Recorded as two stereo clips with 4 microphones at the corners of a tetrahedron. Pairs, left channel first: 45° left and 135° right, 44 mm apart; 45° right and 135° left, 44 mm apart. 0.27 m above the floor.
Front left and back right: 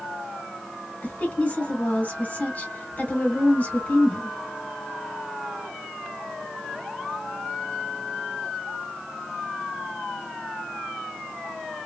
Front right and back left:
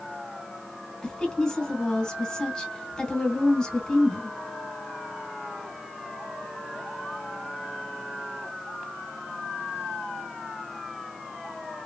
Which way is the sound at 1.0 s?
20° left.